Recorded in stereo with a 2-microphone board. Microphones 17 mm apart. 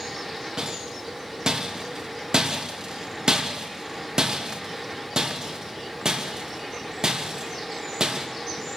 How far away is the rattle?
About 2.5 m.